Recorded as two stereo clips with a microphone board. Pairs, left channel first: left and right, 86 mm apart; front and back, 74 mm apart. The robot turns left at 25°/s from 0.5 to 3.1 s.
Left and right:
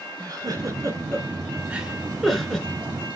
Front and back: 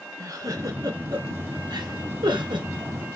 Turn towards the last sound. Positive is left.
turn(degrees=160)